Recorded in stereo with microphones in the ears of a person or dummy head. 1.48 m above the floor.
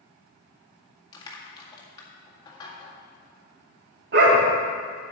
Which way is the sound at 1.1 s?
25° left (ahead or behind).